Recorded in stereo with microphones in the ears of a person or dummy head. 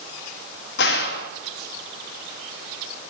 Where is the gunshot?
55° left (ahead or behind), 1.5 m.